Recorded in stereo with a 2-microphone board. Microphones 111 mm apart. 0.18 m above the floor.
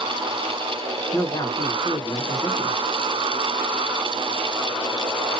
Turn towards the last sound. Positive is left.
turn(degrees=35)  # may be behind; listen again after turning